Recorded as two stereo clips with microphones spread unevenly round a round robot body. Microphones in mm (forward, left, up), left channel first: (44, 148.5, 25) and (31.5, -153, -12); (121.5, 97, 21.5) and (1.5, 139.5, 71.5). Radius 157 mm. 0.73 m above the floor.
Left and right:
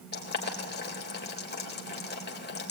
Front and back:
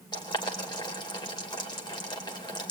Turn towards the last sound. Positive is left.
turn(degrees=30)